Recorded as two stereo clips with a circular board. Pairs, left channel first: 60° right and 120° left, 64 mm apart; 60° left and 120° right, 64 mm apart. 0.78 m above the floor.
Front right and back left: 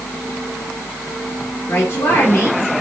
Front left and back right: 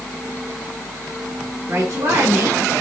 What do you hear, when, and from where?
1.7 s a woman speaking: 95° right, 2.5 m